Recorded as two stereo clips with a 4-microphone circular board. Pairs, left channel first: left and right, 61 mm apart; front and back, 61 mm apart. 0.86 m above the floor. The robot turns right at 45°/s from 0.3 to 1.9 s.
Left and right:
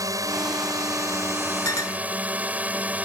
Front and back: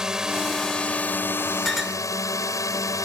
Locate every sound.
0.0 s a drone: 100° right; by 3.0 s 30° right
1.6 s a clink: 85° left; by 2.0 s 95° left